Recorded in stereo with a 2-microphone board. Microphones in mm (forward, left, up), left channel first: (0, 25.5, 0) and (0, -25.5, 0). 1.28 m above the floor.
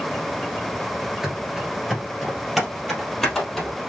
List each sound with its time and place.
1.2 s running footsteps: 10° right (ahead or behind), 1.5 m; by 3.8 s 5° left (ahead or behind), 2.5 m